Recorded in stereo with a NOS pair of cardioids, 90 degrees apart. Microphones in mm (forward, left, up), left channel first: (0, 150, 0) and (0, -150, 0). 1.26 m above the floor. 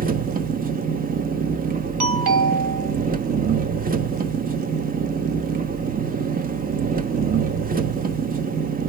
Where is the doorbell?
60° right, 1.9 m.